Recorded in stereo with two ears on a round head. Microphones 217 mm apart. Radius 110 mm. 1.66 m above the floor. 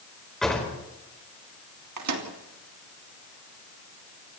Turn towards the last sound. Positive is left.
turn(degrees=-75)  # may be behind; listen again after turning